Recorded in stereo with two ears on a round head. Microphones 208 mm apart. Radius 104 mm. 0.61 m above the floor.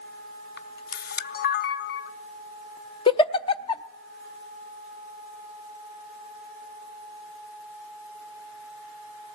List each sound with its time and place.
0.6 s a camera shutter: 45° left (ahead or behind), 0.7 m
3.1 s a giggle: 25° left (ahead or behind), 0.6 m